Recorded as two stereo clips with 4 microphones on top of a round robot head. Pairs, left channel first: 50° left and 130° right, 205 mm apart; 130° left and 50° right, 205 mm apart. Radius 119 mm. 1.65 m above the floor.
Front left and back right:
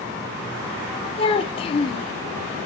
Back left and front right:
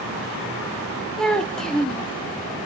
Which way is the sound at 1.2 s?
50° left.